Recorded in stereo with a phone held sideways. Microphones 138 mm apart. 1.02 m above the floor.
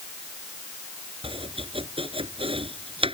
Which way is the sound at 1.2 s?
40° right (ahead or behind).